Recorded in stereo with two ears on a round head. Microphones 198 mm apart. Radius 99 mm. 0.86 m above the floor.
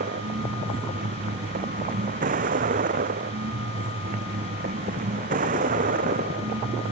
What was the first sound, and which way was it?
A vehicle, 40° right (ahead or behind).